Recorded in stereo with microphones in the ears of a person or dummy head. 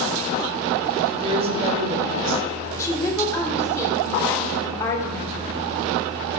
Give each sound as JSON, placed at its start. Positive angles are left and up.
{"t": 1.1, "sound": "a woman speaking", "side_deg": -35, "distance_m": 3.0}
{"t": 2.8, "sound": "a woman speaking", "side_deg": 15, "distance_m": 2.5}